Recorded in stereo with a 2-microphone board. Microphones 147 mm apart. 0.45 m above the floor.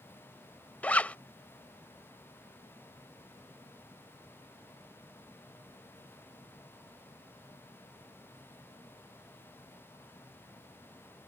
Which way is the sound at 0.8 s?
10° left (ahead or behind).